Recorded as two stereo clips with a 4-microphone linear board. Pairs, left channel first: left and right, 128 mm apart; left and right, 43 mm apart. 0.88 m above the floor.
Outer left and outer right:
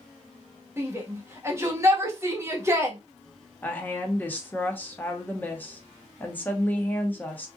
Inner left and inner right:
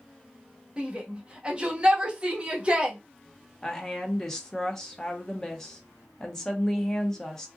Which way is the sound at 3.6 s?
15° left (ahead or behind).